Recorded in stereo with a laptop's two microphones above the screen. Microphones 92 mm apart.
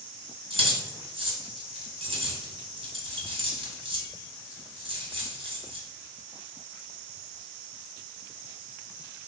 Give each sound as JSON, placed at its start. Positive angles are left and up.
{"t": 0.5, "sound": "keys jangling", "side_deg": -75, "distance_m": 2.0}